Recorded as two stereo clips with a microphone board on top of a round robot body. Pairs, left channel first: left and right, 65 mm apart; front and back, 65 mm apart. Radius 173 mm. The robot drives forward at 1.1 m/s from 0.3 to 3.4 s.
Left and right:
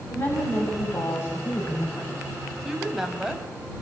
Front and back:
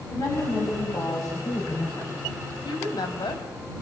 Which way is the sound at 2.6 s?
5° right.